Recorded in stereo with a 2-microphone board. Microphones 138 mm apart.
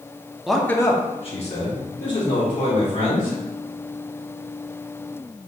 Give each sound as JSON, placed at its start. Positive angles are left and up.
{"t": 0.5, "sound": "a man speaking", "side_deg": -5, "distance_m": 0.6}